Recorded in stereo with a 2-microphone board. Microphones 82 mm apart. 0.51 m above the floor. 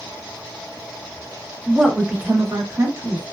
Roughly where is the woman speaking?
Centre.